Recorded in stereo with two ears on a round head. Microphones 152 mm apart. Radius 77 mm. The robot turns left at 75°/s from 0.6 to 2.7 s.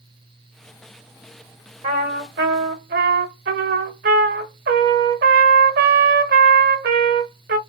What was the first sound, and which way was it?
A trumpet, 45° right.